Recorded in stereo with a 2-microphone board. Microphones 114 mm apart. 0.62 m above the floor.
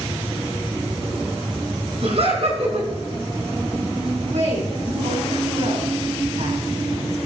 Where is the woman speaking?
80° right, 7.5 m.